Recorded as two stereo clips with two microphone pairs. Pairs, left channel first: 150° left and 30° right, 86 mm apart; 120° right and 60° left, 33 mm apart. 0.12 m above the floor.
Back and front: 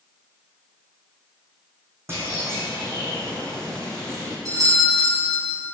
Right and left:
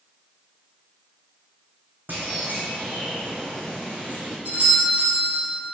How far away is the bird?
About 3.5 m.